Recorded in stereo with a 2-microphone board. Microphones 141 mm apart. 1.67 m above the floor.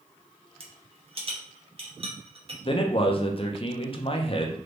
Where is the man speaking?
40° left (ahead or behind), 0.6 m.